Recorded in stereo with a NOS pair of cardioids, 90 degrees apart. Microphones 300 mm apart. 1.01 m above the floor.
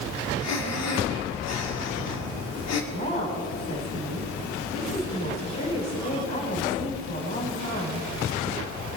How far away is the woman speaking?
About 4.5 m.